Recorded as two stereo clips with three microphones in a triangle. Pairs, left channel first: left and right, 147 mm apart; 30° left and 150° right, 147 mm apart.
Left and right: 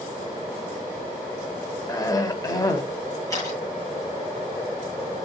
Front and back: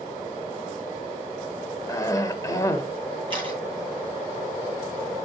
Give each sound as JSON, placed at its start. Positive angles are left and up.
{"t": 1.9, "sound": "a cough", "azimuth_deg": 65, "distance_m": 0.9}
{"t": 3.3, "sound": "a camera shutter", "azimuth_deg": 160, "distance_m": 6.5}